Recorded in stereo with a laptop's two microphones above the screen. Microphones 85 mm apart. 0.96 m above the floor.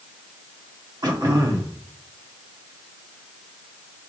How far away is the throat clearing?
About 1.0 m.